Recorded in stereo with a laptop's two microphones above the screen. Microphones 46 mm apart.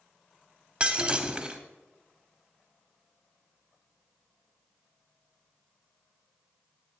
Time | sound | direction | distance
0.8 | breaking glass | 20° right (ahead or behind) | 0.7 m